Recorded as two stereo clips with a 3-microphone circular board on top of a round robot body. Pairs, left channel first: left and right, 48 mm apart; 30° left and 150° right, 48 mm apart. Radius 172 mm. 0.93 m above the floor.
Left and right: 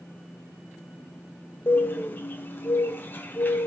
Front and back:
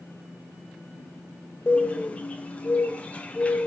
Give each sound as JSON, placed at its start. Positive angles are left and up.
{"t": 1.7, "sound": "a bird", "azimuth_deg": 80, "distance_m": 0.7}